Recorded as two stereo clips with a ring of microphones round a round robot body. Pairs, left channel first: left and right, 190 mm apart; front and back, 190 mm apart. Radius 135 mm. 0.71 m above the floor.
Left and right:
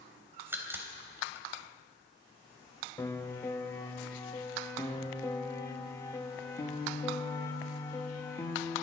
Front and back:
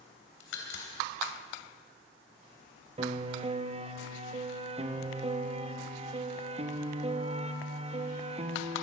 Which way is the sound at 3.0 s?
155° left.